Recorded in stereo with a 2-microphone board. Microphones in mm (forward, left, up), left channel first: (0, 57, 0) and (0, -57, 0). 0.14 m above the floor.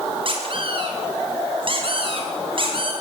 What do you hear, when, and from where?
0.2 s a squeak: 50° right (ahead or behind), 6.5 m